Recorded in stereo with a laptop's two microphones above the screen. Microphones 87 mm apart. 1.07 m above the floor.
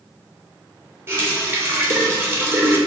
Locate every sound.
1.1 s a running tap: 25° right (ahead or behind), 0.5 m